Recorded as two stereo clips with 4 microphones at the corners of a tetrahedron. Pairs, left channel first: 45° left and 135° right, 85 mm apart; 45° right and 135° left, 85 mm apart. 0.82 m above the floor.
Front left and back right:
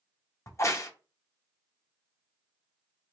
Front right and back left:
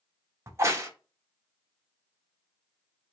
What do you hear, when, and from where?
0.5 s a crack: 90° left, 0.6 m